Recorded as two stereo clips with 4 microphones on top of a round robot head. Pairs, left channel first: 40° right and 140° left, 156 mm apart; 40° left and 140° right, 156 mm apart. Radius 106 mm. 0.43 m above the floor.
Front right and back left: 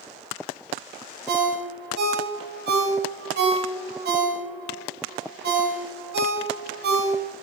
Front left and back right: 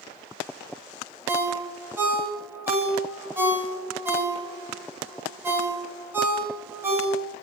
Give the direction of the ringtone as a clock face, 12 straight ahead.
7 o'clock.